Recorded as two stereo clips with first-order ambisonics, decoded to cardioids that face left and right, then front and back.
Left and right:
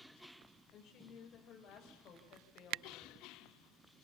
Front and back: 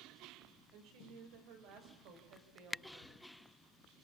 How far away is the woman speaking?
About 5.5 m.